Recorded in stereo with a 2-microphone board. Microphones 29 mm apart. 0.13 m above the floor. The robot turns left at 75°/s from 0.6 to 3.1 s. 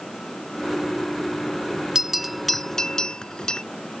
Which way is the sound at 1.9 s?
15° right (ahead or behind).